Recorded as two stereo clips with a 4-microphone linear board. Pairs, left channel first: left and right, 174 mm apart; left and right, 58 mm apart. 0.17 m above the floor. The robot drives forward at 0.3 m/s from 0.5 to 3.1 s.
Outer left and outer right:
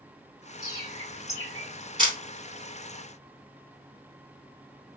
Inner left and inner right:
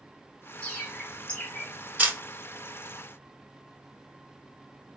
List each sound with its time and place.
0.6 s a bird: 20° left (ahead or behind), 1.7 m
2.0 s a camera shutter: 30° right (ahead or behind), 0.9 m